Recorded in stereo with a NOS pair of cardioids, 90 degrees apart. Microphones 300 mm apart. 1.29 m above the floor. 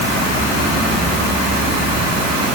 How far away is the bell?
No bell in this recording.